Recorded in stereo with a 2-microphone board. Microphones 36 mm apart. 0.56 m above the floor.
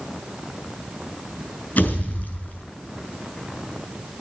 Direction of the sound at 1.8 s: 50° left (ahead or behind).